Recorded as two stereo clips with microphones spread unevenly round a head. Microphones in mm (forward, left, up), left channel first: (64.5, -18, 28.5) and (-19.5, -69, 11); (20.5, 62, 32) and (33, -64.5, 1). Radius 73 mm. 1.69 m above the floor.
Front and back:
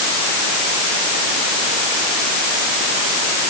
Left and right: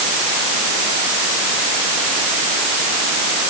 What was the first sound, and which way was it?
Only background noise.